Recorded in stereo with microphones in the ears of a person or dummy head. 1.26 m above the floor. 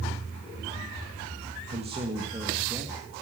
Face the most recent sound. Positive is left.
turn(degrees=-10)  # may be behind; listen again after turning